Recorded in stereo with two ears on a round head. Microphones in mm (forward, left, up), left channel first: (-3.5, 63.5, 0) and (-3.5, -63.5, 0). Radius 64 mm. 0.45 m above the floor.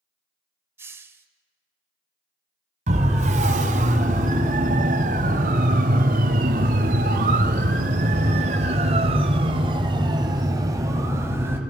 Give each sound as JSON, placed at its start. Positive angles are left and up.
{"t": 0.8, "sound": "a hiss", "side_deg": -15, "distance_m": 1.5}
{"t": 2.9, "sound": "a siren", "side_deg": -50, "distance_m": 4.0}